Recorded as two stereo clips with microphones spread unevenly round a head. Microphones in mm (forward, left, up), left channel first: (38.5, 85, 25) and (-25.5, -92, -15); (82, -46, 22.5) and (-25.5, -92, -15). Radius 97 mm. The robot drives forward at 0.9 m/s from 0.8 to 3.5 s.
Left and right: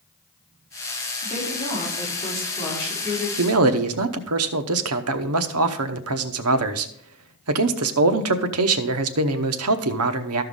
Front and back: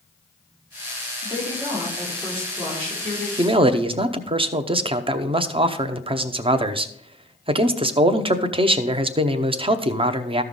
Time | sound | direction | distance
1.2 | a woman speaking | 125° left | 3.5 m
3.4 | a man speaking | 100° right | 0.8 m